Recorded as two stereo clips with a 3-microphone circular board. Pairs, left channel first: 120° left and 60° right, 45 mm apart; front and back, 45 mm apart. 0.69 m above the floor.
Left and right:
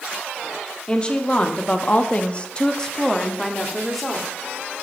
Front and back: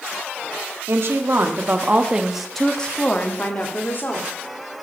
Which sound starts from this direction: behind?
A woman speaking, at 0.9 s.